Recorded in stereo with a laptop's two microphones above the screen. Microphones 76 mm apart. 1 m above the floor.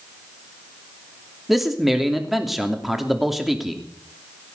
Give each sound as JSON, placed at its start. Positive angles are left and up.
{"t": 1.5, "sound": "a man speaking", "side_deg": -5, "distance_m": 2.5}